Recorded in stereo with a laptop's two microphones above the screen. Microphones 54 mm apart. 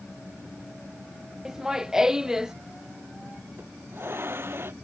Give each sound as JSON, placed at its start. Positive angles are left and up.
{"t": 1.4, "sound": "laughter", "side_deg": -10}
{"t": 3.6, "sound": "a hiss", "side_deg": -45}